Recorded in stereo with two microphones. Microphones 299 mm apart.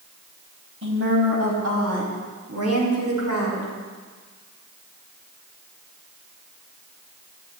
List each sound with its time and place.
0.8 s a woman speaking: 45° right (ahead or behind), 4 m; by 3.7 s 60° right (ahead or behind), 6 m